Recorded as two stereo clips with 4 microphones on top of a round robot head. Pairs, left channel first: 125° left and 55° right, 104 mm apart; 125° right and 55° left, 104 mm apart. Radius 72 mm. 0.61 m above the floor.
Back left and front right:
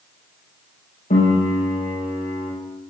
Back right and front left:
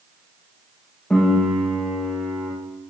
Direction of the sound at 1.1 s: 150° left.